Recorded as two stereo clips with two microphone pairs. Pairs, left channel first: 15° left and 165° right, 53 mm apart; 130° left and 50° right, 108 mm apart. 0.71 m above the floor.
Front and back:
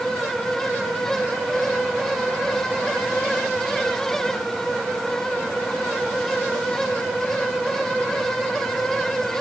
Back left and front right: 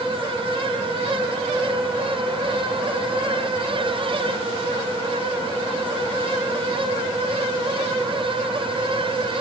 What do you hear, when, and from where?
Only background noise.